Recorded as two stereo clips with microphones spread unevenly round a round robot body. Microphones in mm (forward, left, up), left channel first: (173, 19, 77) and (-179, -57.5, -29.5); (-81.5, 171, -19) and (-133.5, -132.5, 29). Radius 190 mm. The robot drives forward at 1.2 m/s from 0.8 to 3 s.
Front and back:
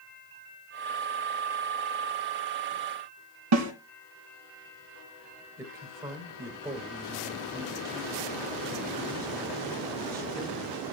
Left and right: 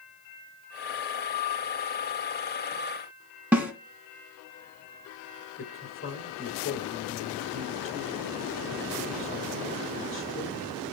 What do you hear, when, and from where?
3.5 s a snare drum: 175° left, 2.5 m
5.6 s a man speaking: 120° left, 2.5 m